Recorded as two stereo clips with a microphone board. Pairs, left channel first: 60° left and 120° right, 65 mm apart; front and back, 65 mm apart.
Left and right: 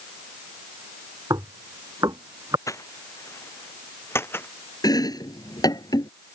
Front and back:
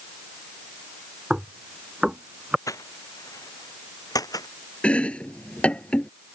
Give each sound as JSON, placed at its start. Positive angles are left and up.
{"t": 1.3, "sound": "knocking", "azimuth_deg": -100}
{"t": 2.7, "sound": "footsteps", "azimuth_deg": 30}
{"t": 4.8, "sound": "chopping", "azimuth_deg": 75}